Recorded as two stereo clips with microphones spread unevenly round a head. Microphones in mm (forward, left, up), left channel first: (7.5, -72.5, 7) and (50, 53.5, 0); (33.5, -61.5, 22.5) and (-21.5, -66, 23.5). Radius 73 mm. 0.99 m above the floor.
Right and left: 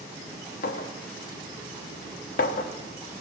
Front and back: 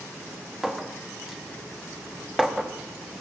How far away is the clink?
About 0.9 m.